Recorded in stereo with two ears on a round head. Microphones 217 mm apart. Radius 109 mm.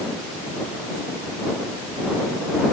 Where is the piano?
I don't hear a piano.